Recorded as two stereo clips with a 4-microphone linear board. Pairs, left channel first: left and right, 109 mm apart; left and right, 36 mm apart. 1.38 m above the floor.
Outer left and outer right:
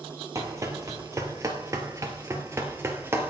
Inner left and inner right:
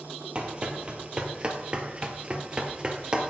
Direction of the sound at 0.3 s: 30° right (ahead or behind).